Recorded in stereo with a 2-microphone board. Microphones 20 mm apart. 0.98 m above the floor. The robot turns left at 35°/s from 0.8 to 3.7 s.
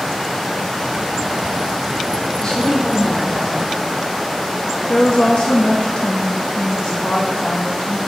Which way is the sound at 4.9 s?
70° left (ahead or behind).